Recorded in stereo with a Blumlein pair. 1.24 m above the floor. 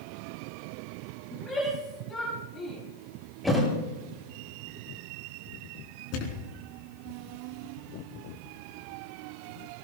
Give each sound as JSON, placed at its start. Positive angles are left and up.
{"t": 1.3, "sound": "a shout", "azimuth_deg": 5, "distance_m": 6.5}
{"t": 3.4, "sound": "a thud", "azimuth_deg": 0, "distance_m": 8.5}
{"t": 6.1, "sound": "a thud", "azimuth_deg": 40, "distance_m": 3.5}